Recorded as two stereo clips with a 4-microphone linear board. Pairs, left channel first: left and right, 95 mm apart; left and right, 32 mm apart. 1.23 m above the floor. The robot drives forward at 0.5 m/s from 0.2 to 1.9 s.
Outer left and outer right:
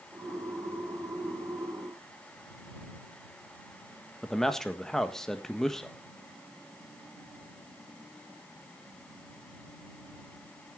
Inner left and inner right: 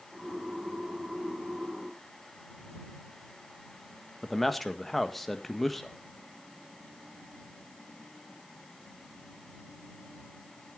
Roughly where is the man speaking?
Centre.